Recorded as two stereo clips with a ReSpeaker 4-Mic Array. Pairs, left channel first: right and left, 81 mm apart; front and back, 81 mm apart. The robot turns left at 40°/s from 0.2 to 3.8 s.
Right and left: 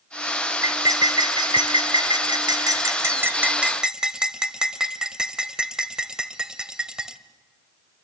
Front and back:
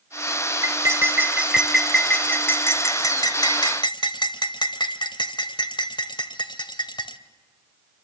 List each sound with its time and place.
0.6 s cutlery clinking: 135° left, 1.2 m; by 7.2 s 10° left, 1.2 m